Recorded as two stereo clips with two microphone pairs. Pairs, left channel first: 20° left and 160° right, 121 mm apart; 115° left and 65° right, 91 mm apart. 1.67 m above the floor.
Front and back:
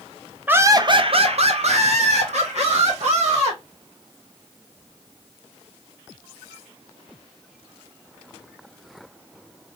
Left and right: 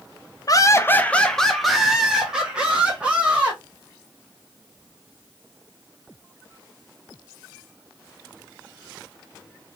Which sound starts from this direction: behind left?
Laughter, at 0.5 s.